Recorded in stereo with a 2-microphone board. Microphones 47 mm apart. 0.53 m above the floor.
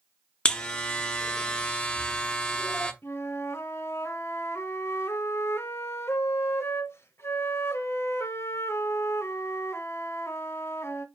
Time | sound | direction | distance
0.5 | a buzzer | 20° left (ahead or behind) | 0.6 m
3.0 | a flute | 60° left (ahead or behind) | 0.7 m